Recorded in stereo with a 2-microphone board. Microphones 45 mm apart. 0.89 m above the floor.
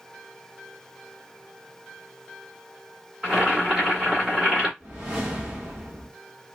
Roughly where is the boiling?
Centre.